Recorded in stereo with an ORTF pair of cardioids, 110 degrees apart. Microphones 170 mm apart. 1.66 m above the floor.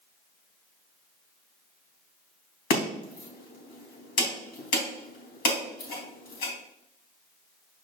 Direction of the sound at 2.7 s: 70° left.